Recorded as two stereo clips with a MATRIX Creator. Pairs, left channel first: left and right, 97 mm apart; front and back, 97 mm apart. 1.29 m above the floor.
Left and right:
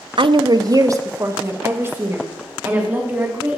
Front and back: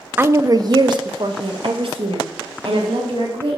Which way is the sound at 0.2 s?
110° right.